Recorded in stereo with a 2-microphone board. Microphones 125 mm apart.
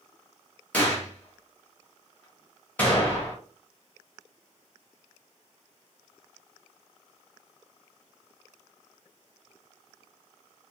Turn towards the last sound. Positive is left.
turn(degrees=15)  # may be behind; listen again after turning